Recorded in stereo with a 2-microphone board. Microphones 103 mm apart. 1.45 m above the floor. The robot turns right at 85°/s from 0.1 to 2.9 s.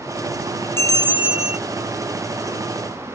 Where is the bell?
25° left; by 1.6 s 95° left.